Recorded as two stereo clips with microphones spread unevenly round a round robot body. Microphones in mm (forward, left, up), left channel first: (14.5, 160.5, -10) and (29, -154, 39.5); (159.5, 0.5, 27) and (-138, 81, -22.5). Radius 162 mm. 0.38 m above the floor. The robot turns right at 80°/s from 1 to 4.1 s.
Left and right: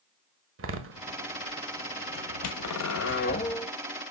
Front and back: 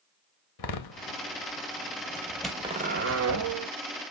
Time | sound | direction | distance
0.6 | a door slam | 35° right | 1.5 m